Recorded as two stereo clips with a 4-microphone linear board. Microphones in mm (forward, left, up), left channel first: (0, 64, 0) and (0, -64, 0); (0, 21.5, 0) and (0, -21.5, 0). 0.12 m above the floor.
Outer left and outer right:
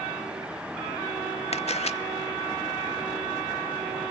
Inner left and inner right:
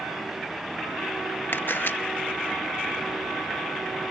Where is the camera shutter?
55° left (ahead or behind), 0.5 m.